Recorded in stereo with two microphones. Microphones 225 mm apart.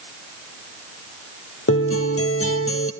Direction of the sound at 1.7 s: 75° left (ahead or behind).